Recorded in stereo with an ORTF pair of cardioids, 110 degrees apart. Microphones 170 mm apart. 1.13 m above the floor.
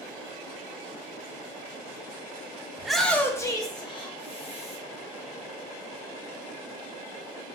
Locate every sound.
2.8 s a shout: 5° right, 0.7 m; by 4.8 s 40° left, 1.6 m